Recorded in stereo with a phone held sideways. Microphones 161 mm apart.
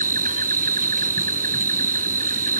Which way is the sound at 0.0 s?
60° right (ahead or behind).